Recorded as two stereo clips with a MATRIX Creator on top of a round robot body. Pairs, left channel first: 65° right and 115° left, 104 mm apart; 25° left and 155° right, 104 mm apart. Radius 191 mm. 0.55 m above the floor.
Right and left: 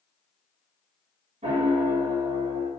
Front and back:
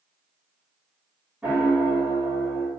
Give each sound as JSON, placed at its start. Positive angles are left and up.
{"t": 1.4, "sound": "a piano", "azimuth_deg": 125, "distance_m": 1.5}